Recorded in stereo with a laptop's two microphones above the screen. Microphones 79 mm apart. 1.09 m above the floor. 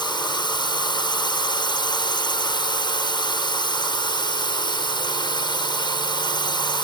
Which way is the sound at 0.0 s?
65° left (ahead or behind).